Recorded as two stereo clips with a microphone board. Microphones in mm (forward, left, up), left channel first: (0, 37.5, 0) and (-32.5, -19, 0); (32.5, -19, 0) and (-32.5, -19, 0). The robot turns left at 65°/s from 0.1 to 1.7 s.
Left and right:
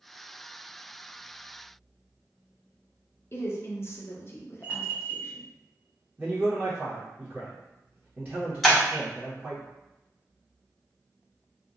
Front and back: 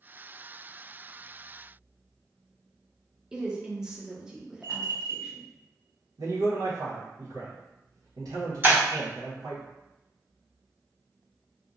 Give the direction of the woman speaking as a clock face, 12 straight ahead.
9 o'clock.